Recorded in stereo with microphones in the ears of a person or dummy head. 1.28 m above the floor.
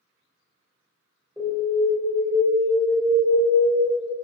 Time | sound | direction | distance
1.4 | an alarm | 10° right (ahead or behind) | 1.6 m